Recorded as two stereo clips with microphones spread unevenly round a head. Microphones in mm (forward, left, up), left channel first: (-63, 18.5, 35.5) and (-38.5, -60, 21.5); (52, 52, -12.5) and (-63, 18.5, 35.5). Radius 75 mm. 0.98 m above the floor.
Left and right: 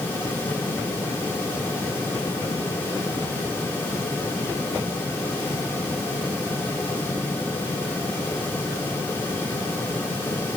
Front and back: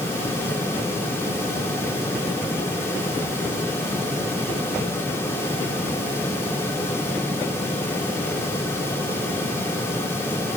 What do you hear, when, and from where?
Only background noise.